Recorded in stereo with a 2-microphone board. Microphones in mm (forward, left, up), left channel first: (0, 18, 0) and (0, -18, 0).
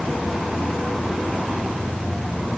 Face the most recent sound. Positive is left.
No sound to turn to.